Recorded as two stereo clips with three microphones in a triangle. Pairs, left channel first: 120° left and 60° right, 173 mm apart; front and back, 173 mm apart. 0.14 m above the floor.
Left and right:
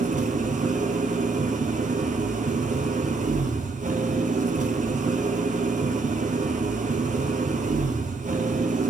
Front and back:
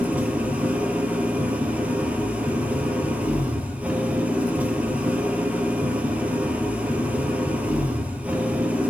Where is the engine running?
100° right, 1.0 m.